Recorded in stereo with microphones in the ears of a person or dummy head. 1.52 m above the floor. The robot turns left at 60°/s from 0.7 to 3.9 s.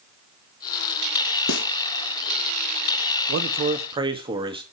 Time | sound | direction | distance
1.5 | a snare drum | 70° left (ahead or behind) | 1.3 m
3.3 | a man speaking | 115° right | 1.9 m